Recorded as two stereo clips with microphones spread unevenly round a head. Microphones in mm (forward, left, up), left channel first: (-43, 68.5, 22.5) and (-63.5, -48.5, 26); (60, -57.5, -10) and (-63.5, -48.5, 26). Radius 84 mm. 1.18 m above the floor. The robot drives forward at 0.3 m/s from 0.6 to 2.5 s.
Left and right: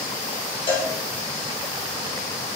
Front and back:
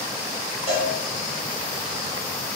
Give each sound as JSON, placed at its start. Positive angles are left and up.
{"t": 0.7, "sound": "a cowbell", "azimuth_deg": 125, "distance_m": 0.9}